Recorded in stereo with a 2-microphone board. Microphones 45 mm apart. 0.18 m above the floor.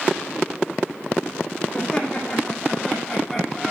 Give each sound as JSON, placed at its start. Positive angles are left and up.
{"t": 1.7, "sound": "laughter", "side_deg": 20, "distance_m": 7.0}